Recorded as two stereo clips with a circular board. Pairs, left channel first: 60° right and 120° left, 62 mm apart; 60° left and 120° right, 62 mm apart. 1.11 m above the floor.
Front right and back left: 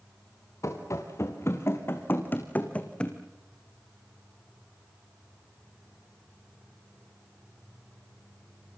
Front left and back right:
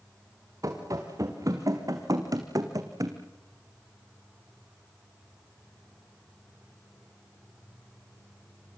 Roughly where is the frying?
I don't hear frying.